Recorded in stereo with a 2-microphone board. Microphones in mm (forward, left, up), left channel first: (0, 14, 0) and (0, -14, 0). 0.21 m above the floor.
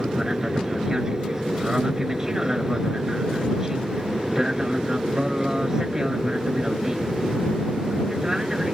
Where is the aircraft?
25° right (ahead or behind).